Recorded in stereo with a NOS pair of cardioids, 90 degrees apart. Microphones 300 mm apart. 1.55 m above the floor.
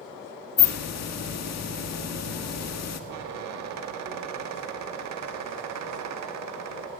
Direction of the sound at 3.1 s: 65° right.